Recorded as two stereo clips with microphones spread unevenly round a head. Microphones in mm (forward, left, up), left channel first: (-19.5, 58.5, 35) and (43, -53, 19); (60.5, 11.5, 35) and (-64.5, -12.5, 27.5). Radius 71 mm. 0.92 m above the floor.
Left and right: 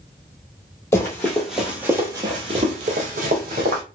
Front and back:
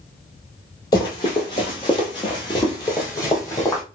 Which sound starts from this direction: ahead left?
Running footsteps, at 0.9 s.